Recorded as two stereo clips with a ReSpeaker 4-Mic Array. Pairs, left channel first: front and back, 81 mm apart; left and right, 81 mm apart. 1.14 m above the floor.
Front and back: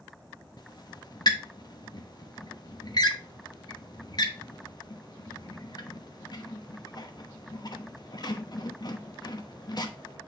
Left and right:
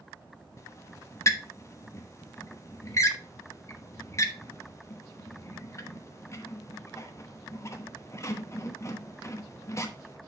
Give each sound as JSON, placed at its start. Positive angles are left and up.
{"t": 0.6, "sound": "a squeak", "azimuth_deg": 35, "distance_m": 1.1}